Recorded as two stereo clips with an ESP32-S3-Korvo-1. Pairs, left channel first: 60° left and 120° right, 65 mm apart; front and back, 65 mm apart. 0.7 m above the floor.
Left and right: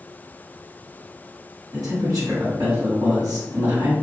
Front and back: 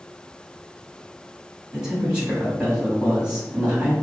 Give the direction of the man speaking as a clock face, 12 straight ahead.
3 o'clock.